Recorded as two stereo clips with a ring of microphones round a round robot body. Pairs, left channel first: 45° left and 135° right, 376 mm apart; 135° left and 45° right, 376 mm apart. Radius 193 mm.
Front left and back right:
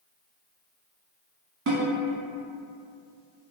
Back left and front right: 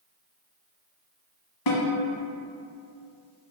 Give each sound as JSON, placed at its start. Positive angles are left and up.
{"t": 1.7, "sound": "a snare drum", "azimuth_deg": 165, "distance_m": 0.8}